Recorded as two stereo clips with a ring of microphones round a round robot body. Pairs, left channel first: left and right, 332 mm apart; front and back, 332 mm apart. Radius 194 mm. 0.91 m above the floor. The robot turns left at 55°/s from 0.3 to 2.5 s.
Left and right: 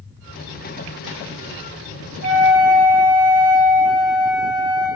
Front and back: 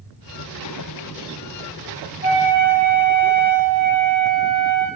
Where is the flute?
130° right, 3 m; by 4.9 s 145° right, 3 m.